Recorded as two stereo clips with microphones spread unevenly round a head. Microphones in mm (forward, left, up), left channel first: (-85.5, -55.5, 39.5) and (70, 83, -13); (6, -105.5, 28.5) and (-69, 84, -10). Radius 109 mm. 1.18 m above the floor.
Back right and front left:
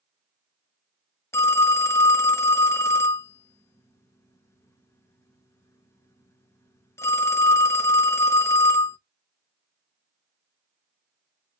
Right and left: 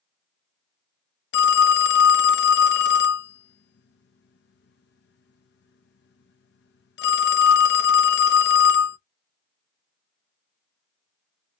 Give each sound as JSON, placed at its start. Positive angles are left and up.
{"t": 1.3, "sound": "a phone ringing", "azimuth_deg": -70, "distance_m": 0.5}